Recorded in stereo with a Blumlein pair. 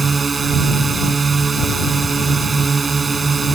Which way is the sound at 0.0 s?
15° right.